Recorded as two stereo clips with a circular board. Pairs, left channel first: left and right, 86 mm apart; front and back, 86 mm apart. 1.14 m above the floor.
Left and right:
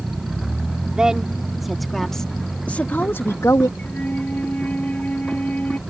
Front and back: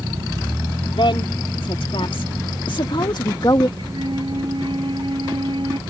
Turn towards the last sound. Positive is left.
turn(degrees=160)